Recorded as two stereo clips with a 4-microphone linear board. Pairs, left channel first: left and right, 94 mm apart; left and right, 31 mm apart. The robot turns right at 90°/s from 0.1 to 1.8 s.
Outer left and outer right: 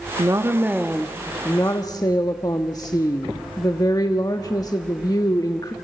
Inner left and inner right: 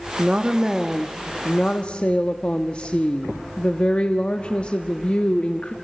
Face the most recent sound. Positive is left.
turn(degrees=75)